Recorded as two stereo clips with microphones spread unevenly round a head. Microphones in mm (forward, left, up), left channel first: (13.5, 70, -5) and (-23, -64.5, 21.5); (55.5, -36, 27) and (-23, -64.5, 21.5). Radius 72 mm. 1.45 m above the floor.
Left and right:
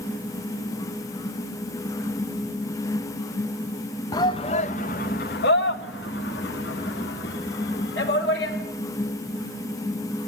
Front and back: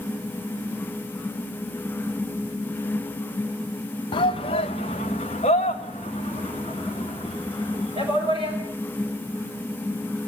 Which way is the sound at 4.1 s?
5° left.